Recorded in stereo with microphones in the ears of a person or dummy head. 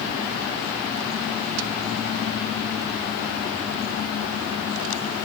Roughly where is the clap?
No clap in this recording.